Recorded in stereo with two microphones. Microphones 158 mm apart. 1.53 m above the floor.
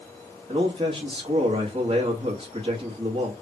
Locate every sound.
0.5 s a man speaking: 35° right (ahead or behind), 1.3 m